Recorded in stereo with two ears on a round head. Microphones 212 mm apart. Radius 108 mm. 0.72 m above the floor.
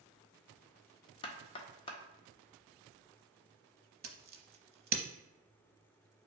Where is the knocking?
20° left (ahead or behind), 0.5 m.